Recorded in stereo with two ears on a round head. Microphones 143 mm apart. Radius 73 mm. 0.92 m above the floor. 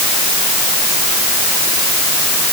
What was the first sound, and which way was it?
Only background noise.